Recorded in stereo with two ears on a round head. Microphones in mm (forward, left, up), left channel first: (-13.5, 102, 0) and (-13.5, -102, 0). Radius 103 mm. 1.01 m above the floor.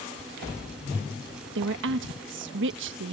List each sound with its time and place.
1.6 s a woman speaking: 55° right (ahead or behind)